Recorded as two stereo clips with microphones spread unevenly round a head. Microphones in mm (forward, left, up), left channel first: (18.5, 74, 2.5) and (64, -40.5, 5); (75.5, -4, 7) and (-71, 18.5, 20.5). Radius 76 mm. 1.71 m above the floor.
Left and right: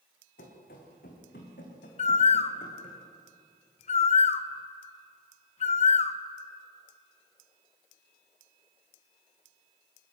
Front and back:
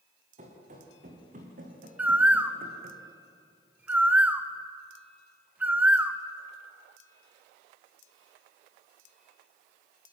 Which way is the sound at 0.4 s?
130° left.